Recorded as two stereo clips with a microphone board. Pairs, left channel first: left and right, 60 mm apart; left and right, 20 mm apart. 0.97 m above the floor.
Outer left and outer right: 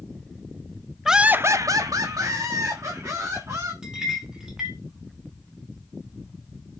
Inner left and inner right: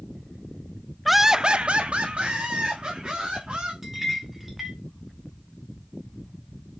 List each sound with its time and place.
1.1 s laughter: 5° right (ahead or behind), 0.7 m; by 3.7 s 55° right (ahead or behind), 3 m
3.8 s a clink: 10° right (ahead or behind), 2.5 m